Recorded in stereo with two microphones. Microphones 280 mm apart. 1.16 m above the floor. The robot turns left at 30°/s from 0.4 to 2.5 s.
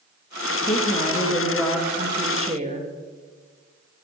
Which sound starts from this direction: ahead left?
A woman speaking, at 0.6 s.